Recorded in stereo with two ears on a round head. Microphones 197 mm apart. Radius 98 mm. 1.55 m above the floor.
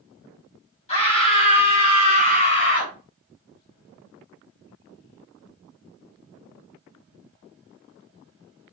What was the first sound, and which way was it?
A scream, 30° left (ahead or behind).